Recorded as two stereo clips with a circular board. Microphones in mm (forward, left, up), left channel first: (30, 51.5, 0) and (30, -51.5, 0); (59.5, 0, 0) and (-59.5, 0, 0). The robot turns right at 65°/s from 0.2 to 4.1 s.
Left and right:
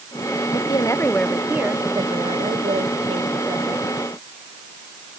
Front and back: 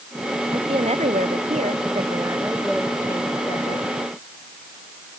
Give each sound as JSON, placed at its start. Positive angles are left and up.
{"t": 0.5, "sound": "a woman speaking", "azimuth_deg": 125}